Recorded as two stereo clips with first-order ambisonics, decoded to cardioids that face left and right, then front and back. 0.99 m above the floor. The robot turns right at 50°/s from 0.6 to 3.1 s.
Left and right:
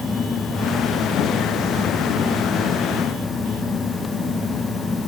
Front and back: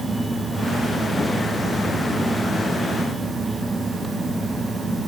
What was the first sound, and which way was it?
Only background noise.